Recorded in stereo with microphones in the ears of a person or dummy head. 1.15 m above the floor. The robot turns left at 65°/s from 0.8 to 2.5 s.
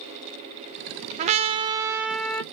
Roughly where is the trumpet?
Right.